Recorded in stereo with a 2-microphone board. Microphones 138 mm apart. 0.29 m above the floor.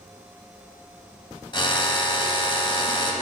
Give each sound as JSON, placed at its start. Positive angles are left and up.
{"t": 1.5, "sound": "a drill", "side_deg": 35, "distance_m": 1.5}